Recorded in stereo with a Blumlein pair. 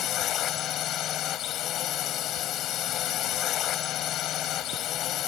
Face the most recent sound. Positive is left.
turn(degrees=35)